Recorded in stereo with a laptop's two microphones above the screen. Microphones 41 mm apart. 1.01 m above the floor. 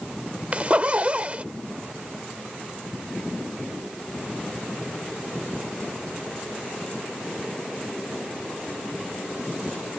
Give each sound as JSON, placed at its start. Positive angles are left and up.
{"t": 0.5, "sound": "a zipper", "side_deg": -35}